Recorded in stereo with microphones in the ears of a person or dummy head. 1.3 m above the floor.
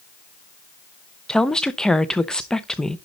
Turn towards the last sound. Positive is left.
turn(degrees=0)  # may be behind; listen again after turning